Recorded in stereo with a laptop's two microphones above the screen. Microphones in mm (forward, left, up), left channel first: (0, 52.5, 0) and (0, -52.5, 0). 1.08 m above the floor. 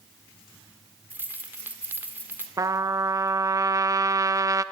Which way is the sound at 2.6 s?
35° right (ahead or behind).